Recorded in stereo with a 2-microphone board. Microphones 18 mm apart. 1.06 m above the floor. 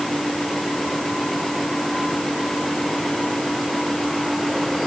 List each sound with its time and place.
Only background noise.